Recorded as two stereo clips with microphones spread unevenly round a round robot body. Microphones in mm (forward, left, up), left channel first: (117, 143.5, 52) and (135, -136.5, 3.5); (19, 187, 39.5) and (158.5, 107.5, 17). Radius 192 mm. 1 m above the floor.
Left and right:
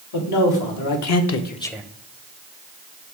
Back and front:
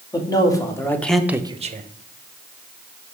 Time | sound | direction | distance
0.1 | a man speaking | 80° left | 1.7 m